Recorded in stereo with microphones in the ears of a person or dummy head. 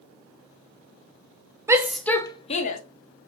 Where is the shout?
15° right (ahead or behind), 0.7 m; by 2.8 s 50° left (ahead or behind), 0.7 m.